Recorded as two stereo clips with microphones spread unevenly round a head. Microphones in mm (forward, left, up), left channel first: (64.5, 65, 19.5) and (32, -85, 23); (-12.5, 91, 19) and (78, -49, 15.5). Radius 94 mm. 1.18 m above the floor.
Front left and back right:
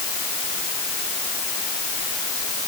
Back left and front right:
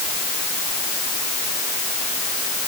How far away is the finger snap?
No finger snap in this recording.